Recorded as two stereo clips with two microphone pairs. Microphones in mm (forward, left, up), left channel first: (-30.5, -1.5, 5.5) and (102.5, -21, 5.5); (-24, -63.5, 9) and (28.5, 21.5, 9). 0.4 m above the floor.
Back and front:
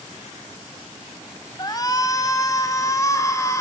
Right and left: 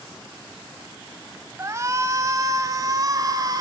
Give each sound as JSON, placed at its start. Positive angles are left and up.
{"t": 1.6, "sound": "a shout", "azimuth_deg": 115, "distance_m": 1.9}